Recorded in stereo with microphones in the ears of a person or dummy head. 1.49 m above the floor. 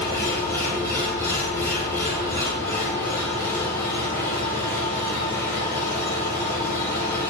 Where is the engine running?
25° left (ahead or behind), 3 m.